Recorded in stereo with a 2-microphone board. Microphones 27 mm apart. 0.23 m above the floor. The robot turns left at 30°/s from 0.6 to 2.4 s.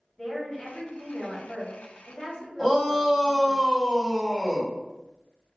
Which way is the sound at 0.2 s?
165° left.